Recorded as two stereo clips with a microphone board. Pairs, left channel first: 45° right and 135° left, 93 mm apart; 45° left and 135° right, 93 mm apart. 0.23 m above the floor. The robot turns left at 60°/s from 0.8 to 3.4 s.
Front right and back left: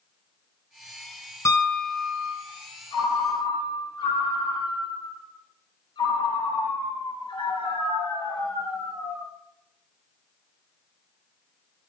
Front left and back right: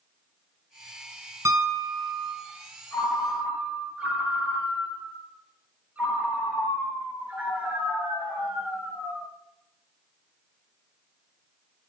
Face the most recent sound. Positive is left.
turn(degrees=-60)